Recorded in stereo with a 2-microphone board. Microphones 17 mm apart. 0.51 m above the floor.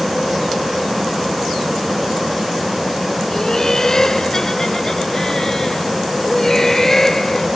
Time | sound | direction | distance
3.3 | laughter | 35° left (ahead or behind) | ?